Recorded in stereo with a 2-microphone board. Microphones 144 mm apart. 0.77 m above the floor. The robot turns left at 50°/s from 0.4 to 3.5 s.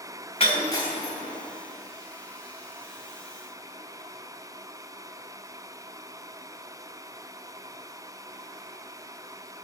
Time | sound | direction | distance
0.4 | breaking glass | 40° left (ahead or behind) | 2.5 m